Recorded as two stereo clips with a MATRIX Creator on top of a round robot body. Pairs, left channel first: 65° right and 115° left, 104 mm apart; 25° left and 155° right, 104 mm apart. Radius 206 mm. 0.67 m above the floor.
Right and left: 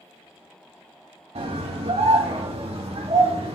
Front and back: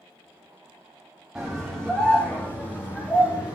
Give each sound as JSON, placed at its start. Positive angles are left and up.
{"t": 1.4, "sound": "a scream", "azimuth_deg": 115, "distance_m": 1.9}